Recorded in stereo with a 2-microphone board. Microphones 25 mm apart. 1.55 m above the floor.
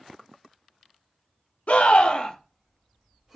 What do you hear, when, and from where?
1.7 s a scream: 60° left (ahead or behind), 0.8 m; by 3.4 s 10° right (ahead or behind), 1.0 m